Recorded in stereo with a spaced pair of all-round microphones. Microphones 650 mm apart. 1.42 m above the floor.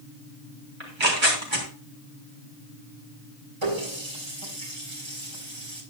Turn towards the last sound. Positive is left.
turn(degrees=-45)  # may be behind; listen again after turning